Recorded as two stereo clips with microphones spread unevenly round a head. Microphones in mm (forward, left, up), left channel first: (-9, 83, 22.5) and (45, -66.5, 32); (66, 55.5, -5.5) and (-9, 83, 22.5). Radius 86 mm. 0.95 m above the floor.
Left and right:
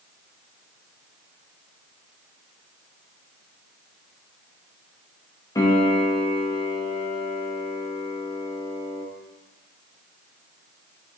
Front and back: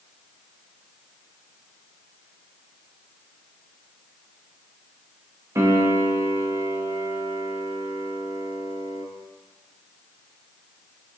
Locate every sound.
5.5 s a piano: 105° left, 0.5 m